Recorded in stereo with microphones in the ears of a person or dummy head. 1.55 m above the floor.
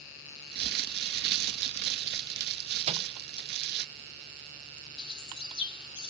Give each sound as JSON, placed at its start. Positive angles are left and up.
{"t": 0.5, "sound": "crumpling", "side_deg": -55}
{"t": 2.9, "sound": "a microwave", "side_deg": -30}
{"t": 5.0, "sound": "a bird", "side_deg": 25}